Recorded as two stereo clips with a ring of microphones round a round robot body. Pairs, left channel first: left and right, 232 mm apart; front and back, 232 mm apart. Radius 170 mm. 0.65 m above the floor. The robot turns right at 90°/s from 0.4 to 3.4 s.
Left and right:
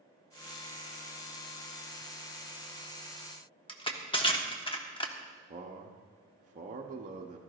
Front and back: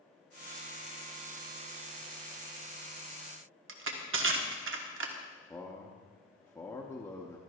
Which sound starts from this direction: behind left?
Crushing, at 3.7 s.